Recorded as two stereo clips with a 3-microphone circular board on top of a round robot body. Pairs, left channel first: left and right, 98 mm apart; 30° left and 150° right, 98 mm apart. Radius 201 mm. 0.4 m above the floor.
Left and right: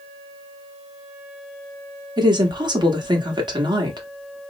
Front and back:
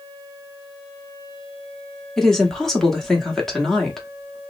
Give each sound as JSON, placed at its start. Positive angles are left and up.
{"t": 2.2, "sound": "a woman speaking", "azimuth_deg": -55, "distance_m": 1.4}